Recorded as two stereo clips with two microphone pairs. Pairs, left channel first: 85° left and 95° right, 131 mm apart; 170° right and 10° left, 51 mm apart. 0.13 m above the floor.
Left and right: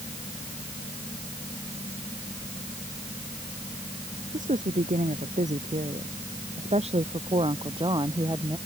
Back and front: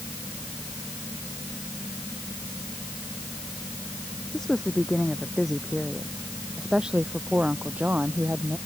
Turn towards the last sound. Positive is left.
turn(degrees=-35)